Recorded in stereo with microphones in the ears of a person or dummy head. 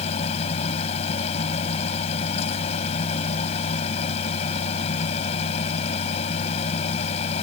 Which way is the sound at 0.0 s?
30° left (ahead or behind).